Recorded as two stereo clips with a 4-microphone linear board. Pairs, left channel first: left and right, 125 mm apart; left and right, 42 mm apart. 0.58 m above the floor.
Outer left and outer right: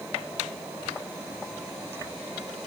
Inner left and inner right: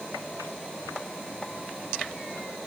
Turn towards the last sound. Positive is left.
No sound to turn to.